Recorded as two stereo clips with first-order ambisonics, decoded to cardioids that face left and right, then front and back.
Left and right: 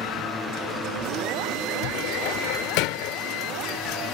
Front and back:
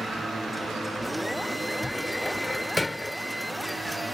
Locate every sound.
1.8 s a cupboard door: 85° left